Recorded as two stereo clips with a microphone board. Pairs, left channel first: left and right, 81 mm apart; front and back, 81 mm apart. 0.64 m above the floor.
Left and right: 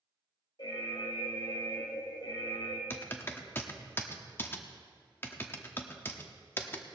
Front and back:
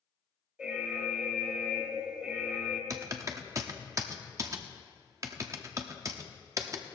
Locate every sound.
0.6 s an alarm: 105° left, 1.9 m
2.9 s typing on a keyboard: 145° left, 0.9 m